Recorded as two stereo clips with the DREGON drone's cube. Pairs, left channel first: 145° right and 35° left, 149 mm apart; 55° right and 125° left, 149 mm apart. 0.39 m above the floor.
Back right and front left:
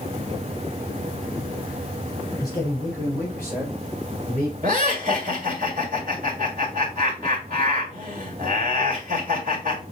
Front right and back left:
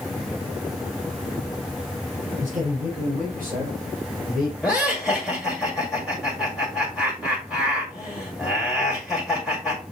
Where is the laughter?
35° left, 2.0 m.